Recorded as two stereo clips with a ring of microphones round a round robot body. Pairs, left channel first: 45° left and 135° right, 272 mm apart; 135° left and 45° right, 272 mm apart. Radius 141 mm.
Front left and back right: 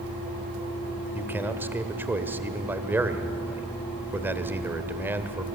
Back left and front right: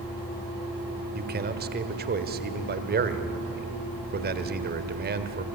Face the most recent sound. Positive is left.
turn(degrees=-55)